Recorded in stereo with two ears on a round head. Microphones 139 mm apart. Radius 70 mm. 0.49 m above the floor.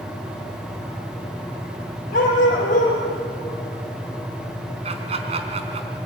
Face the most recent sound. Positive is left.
turn(degrees=-40)  # may be behind; listen again after turning